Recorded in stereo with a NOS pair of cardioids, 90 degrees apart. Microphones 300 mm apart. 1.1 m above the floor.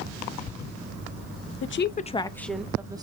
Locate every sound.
1.6 s a woman speaking: 45° left, 0.7 m; by 3.0 s 15° right, 1.1 m